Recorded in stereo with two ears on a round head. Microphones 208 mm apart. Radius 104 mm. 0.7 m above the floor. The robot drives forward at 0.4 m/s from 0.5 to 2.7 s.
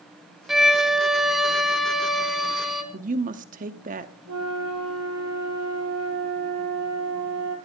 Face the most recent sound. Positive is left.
turn(degrees=-80)